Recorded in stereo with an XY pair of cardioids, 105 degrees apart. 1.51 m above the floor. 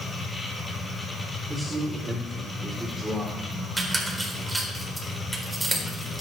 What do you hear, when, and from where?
0.0 s a machine running: 20° left, 5.5 m
1.5 s a man speaking: 10° right, 4.5 m
3.8 s a squeak: 10° right, 4.5 m